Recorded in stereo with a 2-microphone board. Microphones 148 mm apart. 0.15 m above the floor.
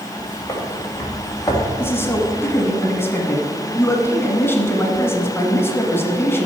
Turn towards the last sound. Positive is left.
turn(degrees=15)  # may be behind; listen again after turning